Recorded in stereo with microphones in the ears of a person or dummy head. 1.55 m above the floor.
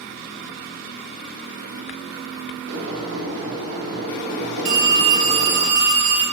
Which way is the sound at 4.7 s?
65° right (ahead or behind).